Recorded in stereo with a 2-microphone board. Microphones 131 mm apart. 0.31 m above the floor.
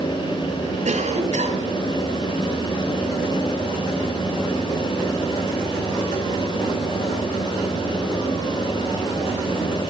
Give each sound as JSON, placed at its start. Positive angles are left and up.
{"t": 0.8, "sound": "a cough", "side_deg": -60, "distance_m": 2.5}